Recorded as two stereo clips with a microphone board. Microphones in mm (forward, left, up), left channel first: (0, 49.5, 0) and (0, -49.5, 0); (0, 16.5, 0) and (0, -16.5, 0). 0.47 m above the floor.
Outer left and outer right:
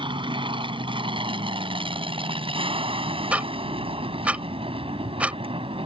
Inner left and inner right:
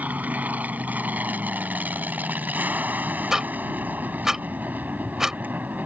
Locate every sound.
0.0 s an aircraft: 55° right (ahead or behind); by 5.9 s 65° right (ahead or behind)
3.3 s ticking: 15° right (ahead or behind)